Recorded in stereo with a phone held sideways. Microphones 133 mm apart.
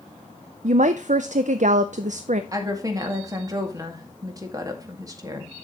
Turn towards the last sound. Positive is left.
turn(degrees=-25)  # may be behind; listen again after turning